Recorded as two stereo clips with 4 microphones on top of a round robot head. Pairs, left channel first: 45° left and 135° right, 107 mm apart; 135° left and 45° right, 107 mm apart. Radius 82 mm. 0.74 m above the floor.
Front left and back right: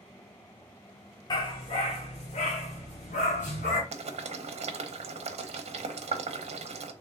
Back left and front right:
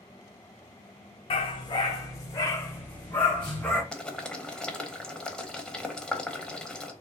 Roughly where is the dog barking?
Left.